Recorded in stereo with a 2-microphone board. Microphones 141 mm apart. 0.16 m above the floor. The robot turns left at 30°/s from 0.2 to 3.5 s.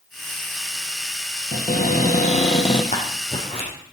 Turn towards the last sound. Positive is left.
turn(degrees=40)  # may be behind; listen again after turning